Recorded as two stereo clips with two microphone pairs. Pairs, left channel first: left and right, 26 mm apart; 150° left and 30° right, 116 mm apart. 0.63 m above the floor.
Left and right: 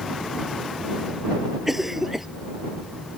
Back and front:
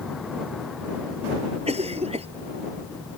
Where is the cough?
10° right.